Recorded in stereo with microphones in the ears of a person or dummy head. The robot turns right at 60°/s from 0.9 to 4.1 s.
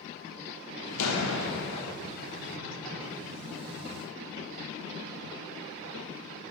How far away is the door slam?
About 0.9 m.